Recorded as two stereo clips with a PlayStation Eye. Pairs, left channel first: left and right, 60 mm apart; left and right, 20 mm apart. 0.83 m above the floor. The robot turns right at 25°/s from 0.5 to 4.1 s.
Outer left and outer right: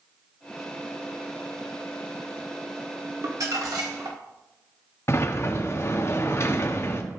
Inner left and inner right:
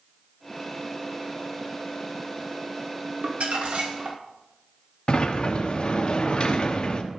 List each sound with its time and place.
3.2 s crumpling: 70° right (ahead or behind), 1.6 m; by 4.2 s 80° right, 1.6 m
5.1 s a sliding door: 45° left (ahead or behind), 0.7 m